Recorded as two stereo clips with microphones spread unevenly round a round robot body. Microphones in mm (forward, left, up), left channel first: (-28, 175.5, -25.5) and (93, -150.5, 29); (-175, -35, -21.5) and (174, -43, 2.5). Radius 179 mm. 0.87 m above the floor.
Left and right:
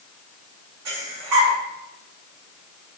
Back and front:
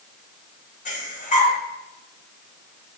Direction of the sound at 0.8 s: 115° right.